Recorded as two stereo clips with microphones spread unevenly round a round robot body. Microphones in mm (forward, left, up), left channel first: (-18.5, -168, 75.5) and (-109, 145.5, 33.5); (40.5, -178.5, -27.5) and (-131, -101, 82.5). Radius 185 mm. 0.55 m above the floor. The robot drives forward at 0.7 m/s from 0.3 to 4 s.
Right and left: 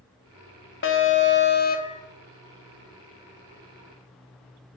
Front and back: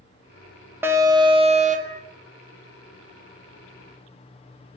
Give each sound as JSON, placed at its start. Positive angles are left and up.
{"t": 0.8, "sound": "an alarm", "azimuth_deg": -70, "distance_m": 1.3}